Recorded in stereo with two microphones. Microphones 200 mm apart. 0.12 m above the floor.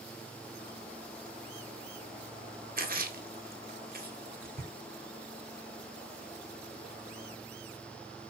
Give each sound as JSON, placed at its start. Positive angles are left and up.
{"t": 2.8, "sound": "a splash", "side_deg": -50, "distance_m": 0.7}